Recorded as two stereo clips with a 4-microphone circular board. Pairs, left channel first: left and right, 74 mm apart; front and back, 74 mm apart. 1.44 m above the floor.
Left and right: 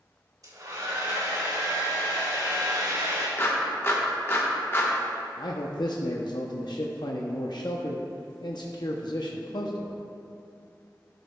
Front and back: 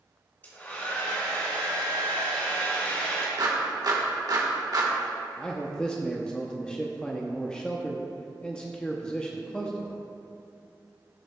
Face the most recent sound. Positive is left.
turn(degrees=80)